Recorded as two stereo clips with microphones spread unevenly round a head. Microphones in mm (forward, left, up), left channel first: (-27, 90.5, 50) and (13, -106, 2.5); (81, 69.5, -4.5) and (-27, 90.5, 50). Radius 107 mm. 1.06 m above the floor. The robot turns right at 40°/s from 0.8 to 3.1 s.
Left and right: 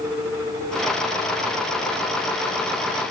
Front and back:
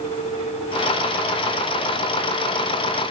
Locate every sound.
Only background noise.